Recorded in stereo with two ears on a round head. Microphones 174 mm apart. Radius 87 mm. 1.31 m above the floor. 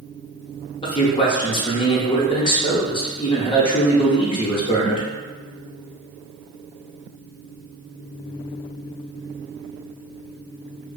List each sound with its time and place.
0.8 s a man speaking: 25° left (ahead or behind), 0.6 m